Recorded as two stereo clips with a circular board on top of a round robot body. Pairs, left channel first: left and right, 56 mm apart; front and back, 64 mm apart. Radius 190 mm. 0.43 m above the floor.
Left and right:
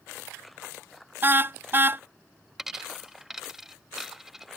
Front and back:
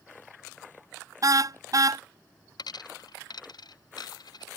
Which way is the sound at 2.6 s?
5° right.